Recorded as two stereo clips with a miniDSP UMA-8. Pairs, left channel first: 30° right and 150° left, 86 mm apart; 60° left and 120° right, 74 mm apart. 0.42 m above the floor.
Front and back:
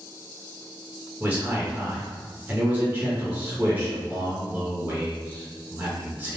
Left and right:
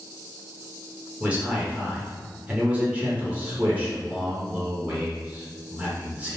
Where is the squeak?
I don't hear a squeak.